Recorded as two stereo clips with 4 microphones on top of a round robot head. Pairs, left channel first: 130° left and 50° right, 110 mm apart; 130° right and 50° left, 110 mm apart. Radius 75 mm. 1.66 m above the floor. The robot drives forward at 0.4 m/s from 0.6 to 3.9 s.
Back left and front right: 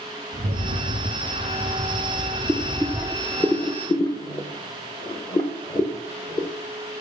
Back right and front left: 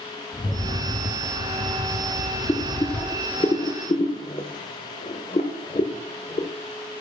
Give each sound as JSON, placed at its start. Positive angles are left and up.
{"t": 0.3, "sound": "a rattle", "azimuth_deg": -65, "distance_m": 0.9}
{"t": 2.5, "sound": "boiling", "azimuth_deg": -115, "distance_m": 0.6}